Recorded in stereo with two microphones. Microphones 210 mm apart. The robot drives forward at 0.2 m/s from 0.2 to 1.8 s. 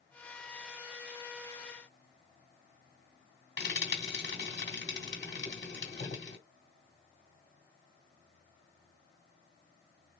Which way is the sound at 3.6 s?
60° left (ahead or behind).